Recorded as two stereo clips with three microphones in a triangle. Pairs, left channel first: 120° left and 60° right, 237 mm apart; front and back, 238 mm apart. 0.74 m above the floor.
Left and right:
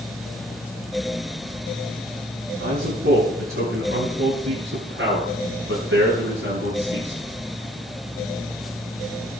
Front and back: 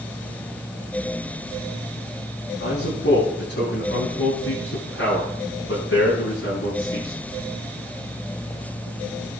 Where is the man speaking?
30° right, 9 m; by 7.2 s 25° right, 12 m.